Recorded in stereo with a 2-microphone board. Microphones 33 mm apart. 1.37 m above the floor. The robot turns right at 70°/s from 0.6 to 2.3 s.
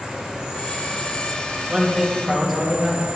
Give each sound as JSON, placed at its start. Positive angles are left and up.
{"t": 0.0, "sound": "an insect", "azimuth_deg": -155, "distance_m": 3.0}
{"t": 1.7, "sound": "a man speaking", "azimuth_deg": -30, "distance_m": 2.5}